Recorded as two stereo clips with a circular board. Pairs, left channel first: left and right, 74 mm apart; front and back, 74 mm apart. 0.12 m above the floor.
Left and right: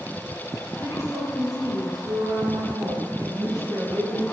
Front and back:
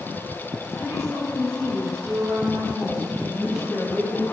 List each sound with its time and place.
0.8 s a woman speaking: 135° right, 6 m; by 4.2 s 85° right, 4.5 m